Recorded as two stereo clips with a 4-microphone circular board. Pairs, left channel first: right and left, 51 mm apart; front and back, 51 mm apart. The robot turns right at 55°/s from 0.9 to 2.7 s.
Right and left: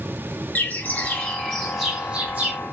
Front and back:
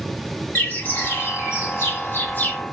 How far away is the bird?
About 2.5 m.